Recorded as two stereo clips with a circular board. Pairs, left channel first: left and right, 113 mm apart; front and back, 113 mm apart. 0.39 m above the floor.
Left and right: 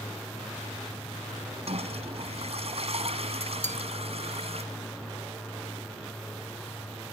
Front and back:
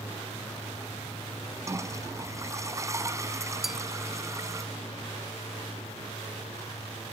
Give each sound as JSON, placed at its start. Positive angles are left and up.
{"t": 1.7, "sound": "a toilet flushing", "azimuth_deg": -115}
{"t": 3.6, "sound": "a bell", "azimuth_deg": -90}